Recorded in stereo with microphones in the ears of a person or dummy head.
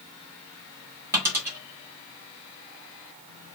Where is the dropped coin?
10° right (ahead or behind), 1.4 m.